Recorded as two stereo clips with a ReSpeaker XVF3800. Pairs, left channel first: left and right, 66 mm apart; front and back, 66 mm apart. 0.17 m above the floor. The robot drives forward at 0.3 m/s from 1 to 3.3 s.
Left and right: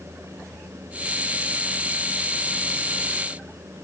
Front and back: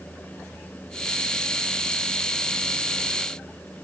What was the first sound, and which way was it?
Only background noise.